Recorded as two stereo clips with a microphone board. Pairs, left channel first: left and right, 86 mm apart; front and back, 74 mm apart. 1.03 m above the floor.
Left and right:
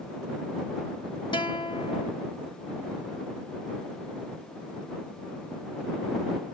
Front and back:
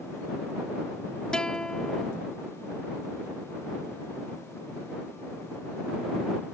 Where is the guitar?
80° left.